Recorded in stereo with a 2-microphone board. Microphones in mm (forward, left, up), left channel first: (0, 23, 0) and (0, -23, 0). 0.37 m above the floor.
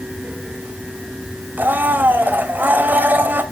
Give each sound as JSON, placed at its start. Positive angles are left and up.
{"t": 1.6, "sound": "a blender", "side_deg": -40, "distance_m": 2.0}